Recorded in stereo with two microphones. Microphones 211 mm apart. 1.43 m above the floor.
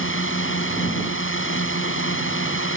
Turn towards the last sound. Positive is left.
turn(degrees=70)  # may be behind; listen again after turning